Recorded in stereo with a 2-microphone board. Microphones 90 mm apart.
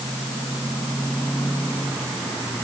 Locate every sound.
Only background noise.